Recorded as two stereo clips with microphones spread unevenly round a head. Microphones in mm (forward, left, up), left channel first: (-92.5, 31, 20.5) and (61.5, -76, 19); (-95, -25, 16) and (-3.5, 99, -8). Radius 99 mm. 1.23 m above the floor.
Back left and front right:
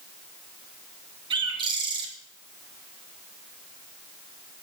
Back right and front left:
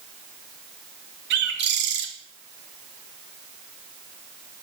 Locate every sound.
1.3 s a bird: 35° left, 2.5 m